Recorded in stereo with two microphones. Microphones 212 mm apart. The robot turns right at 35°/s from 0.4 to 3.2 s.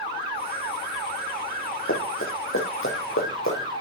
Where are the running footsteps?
75° left (ahead or behind), 6 m.